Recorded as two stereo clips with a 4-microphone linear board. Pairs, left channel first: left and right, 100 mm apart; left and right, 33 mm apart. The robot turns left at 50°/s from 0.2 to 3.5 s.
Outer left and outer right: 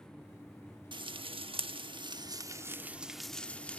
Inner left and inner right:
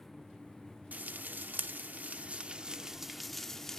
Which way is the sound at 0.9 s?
50° right (ahead or behind).